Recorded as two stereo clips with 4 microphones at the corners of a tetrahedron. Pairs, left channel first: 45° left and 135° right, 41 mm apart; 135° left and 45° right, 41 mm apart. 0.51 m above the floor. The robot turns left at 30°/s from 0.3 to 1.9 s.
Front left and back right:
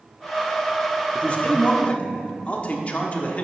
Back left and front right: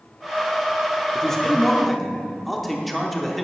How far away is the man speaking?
About 0.8 m.